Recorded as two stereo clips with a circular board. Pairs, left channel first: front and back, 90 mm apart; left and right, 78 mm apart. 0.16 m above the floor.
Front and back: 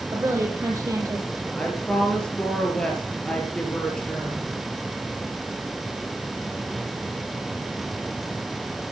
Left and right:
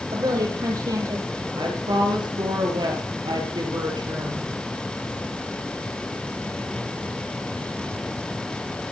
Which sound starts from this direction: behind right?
A woman speaking, at 0.1 s.